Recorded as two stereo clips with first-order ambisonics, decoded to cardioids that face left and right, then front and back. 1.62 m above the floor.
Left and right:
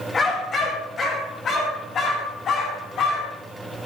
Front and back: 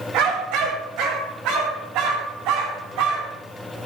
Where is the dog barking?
160° left, 2.5 m; by 3.3 s 150° left, 5 m.